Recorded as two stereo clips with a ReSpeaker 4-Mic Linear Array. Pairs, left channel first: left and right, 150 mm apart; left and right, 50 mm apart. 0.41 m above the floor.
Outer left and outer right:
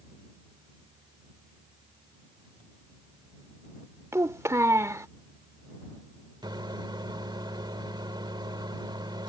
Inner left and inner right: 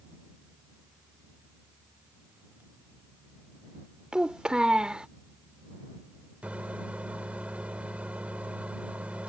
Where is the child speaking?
20° right (ahead or behind).